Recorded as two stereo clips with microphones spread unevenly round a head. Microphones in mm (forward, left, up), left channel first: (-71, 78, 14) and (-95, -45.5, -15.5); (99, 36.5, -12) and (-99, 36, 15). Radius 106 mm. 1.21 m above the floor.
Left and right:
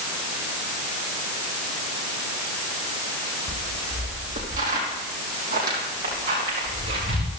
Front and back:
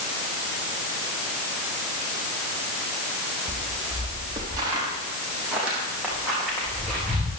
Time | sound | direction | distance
3.5 | footsteps | 120° right | 3 m